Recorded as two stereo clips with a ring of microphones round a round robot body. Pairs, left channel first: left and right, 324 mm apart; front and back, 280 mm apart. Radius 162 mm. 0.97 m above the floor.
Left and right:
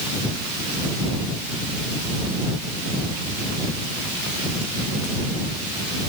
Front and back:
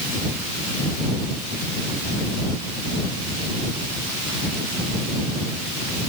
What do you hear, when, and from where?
Only background noise.